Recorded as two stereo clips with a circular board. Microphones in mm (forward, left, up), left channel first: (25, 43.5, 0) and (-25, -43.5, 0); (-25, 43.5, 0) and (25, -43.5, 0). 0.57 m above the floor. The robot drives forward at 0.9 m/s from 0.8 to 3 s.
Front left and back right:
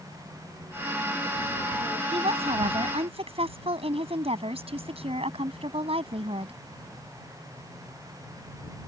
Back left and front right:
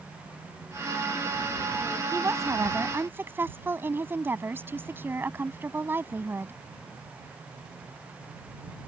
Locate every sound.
2.1 s a woman speaking: 120° right; by 6.5 s 130° right